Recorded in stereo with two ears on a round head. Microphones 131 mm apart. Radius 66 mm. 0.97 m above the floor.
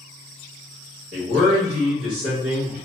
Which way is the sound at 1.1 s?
55° right (ahead or behind).